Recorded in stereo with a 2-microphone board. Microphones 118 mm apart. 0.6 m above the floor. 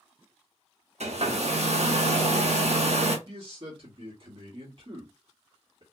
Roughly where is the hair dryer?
Right.